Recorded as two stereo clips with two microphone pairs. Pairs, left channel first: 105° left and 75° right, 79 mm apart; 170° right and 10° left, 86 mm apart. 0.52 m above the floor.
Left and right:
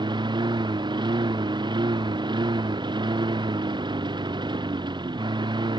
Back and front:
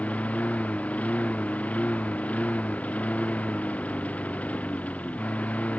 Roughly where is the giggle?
No giggle in this recording.